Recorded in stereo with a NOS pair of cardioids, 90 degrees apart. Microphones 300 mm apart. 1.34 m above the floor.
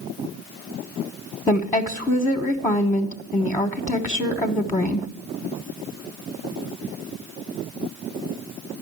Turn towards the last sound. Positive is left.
turn(degrees=10)